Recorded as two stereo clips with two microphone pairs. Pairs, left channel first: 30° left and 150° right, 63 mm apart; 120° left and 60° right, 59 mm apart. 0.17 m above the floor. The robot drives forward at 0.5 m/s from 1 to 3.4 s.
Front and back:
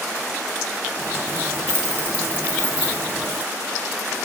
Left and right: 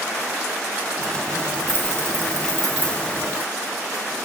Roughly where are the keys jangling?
Right.